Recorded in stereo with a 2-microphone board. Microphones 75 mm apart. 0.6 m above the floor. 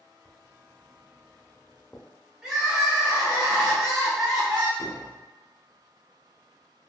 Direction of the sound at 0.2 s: 10° left (ahead or behind).